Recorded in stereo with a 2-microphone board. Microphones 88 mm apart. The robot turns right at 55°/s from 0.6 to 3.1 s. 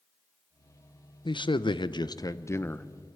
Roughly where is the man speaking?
Left.